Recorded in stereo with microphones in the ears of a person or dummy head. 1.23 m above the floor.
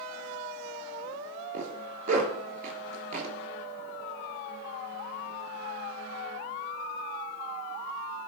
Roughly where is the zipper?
Right.